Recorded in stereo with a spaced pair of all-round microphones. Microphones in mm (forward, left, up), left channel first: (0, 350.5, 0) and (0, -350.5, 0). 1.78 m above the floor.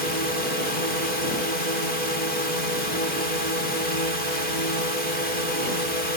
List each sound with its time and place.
0.0 s a drone: 75° right (ahead or behind)